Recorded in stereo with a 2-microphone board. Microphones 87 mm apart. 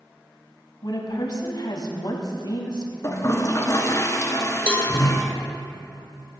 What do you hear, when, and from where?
0.8 s a woman speaking: 60° left (ahead or behind), 1.6 m
3.0 s a toilet flushing: 40° left (ahead or behind), 1.1 m
4.7 s a cowbell: 15° left (ahead or behind), 1.2 m